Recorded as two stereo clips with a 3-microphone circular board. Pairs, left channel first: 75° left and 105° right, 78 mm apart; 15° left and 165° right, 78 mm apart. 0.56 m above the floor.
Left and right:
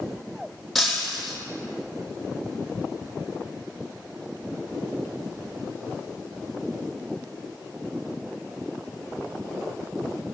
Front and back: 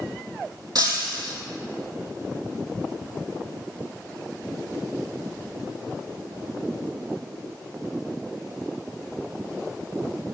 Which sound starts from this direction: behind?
Breaking glass, at 0.8 s.